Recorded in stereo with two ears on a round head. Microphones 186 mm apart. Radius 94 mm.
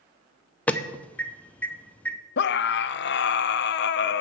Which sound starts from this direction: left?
A scream, at 2.4 s.